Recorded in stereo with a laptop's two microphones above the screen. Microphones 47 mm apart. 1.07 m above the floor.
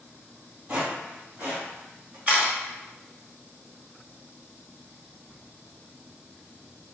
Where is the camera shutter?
30° right (ahead or behind), 1.0 m.